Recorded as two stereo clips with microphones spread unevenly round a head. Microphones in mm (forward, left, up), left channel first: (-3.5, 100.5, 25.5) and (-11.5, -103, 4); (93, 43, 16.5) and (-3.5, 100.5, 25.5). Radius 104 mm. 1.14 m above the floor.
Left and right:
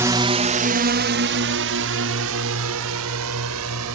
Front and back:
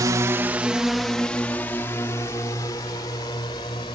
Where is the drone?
160° right; by 4.0 s 100° right.